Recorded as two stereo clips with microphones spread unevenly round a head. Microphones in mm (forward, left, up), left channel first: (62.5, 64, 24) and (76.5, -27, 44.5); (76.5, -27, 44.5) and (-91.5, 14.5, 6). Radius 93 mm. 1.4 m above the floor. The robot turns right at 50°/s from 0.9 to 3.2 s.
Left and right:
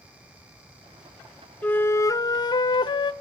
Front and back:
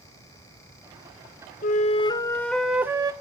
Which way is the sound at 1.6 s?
35° left.